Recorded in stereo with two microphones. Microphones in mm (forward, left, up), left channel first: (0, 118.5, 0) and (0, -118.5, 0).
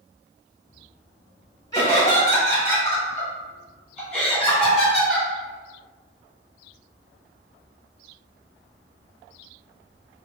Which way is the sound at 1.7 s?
15° left (ahead or behind).